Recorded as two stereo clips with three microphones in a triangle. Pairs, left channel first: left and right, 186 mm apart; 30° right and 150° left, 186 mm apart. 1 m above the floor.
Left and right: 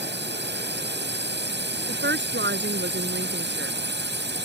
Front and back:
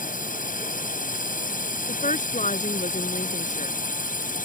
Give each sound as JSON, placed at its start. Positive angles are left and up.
{"t": 0.0, "sound": "a drone", "azimuth_deg": -70}
{"t": 1.9, "sound": "a woman speaking", "azimuth_deg": -80}